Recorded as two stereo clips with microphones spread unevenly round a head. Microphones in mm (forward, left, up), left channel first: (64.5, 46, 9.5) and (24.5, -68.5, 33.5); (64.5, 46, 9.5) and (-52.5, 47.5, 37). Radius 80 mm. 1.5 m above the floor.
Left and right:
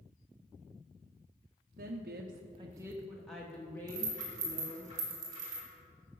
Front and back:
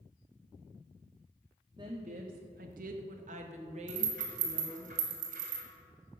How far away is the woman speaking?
About 0.7 m.